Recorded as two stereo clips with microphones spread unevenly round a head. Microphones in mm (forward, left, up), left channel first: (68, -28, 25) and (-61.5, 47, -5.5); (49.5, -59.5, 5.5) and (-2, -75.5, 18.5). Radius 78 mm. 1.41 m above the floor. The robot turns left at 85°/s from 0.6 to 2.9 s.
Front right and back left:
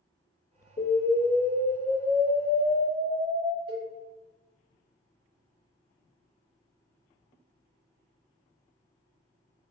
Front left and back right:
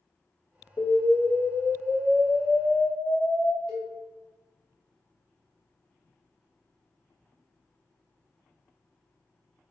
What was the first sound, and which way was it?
An explosion, 60° right.